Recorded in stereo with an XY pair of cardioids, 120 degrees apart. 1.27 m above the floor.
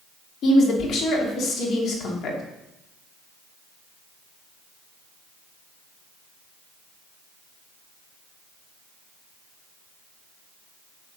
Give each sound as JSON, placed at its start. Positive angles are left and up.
{"t": 0.4, "sound": "a woman speaking", "azimuth_deg": 60, "distance_m": 3.0}